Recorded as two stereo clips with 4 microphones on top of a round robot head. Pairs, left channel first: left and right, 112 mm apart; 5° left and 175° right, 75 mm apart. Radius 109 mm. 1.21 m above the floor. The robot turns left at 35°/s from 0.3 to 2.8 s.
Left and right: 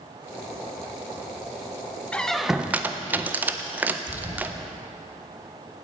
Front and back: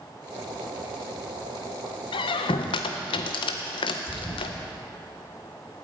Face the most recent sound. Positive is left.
turn(degrees=-45)